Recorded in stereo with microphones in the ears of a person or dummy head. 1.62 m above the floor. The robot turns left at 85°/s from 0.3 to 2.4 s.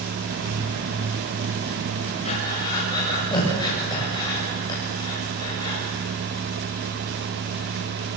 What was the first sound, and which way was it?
Breathing, 35° left (ahead or behind).